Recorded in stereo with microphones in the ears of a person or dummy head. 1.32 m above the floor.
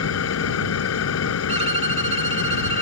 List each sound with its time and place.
0.0 s an engine running: 80° left
1.5 s a violin: 35° right (ahead or behind)